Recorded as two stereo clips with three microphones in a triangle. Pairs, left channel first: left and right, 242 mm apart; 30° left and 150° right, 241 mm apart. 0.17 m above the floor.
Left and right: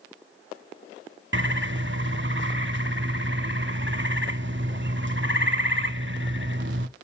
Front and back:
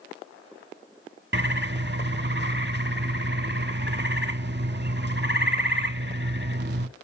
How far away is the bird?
About 0.6 m.